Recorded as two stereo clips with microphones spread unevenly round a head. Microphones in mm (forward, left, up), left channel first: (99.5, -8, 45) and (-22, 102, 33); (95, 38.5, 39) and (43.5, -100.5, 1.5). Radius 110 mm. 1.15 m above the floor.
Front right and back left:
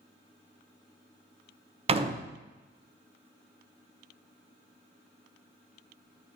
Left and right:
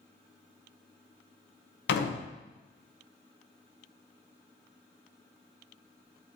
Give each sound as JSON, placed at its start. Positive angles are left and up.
{"t": 1.9, "sound": "a door slam", "azimuth_deg": 80, "distance_m": 0.7}